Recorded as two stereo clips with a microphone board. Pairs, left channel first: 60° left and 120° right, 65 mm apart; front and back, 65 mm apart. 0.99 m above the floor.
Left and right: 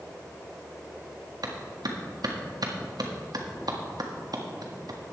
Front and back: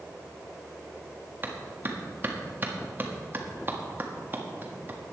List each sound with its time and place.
1.4 s a clap: 120° right, 1.5 m